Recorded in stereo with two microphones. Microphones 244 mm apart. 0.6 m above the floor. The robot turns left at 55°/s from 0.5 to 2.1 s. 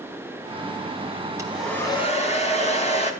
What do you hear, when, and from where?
1.4 s a hair dryer: 165° right, 3.5 m; by 3.1 s 155° left, 3.5 m